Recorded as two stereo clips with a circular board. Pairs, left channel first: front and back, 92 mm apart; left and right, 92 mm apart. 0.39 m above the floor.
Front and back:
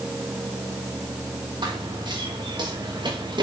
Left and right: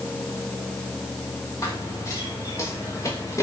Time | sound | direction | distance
1.6 | running footsteps | 145° left | 6 m